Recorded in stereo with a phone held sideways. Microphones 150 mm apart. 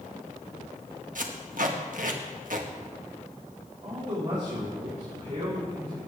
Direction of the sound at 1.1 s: 65° right (ahead or behind).